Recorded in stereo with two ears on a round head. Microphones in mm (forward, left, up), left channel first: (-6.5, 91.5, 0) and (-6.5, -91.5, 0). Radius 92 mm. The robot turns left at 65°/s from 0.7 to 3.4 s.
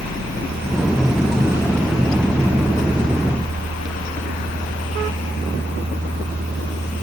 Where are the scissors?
I don't hear scissors.